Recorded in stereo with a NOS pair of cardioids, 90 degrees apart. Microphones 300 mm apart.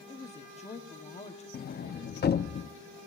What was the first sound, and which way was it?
A woman speaking, 20° left.